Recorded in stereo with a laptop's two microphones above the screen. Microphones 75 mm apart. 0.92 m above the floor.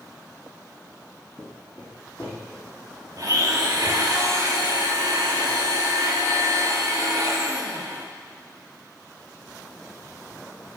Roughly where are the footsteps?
Centre.